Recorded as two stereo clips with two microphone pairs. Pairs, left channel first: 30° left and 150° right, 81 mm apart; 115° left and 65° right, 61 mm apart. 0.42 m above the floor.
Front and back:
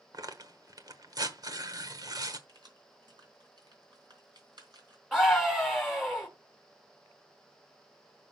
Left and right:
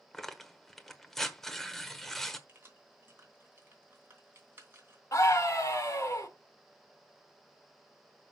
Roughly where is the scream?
Behind left.